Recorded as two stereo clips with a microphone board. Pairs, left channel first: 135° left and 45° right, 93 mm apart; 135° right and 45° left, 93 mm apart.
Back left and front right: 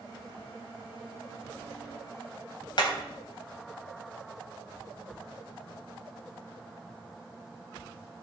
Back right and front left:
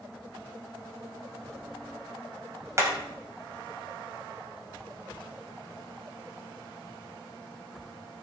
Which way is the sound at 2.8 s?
100° left.